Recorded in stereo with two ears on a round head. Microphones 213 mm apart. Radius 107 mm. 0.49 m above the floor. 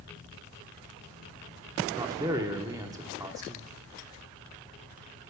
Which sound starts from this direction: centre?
A man speaking, at 1.9 s.